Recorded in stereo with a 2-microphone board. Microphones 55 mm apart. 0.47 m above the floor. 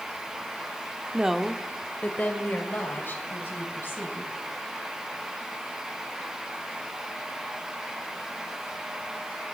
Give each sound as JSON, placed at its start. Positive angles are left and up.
{"t": 1.1, "sound": "a woman speaking", "side_deg": -20, "distance_m": 0.8}